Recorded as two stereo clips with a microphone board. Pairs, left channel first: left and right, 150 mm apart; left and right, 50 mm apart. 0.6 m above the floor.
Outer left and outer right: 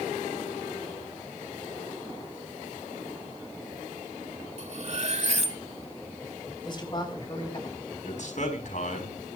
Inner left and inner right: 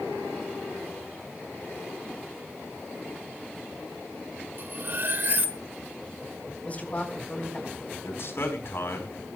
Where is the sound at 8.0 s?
65° left (ahead or behind), 4 m.